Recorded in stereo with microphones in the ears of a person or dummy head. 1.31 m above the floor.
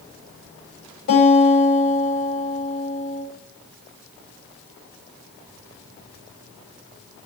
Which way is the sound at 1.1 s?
60° left (ahead or behind).